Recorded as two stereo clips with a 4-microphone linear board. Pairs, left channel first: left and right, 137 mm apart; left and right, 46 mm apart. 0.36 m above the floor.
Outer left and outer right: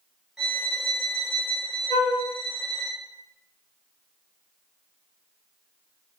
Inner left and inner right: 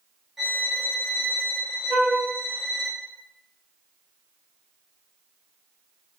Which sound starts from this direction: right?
A flute, at 1.9 s.